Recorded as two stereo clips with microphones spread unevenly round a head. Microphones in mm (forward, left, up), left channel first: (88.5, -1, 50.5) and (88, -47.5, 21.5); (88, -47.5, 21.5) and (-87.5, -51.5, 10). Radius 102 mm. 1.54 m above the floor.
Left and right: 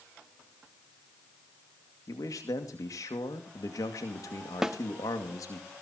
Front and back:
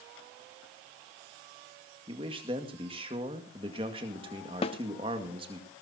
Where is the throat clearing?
No throat clearing in this recording.